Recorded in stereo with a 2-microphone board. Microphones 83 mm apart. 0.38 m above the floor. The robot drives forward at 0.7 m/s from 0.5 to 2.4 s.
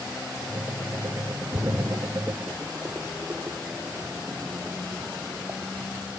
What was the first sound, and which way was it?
A splash, 35° right (ahead or behind).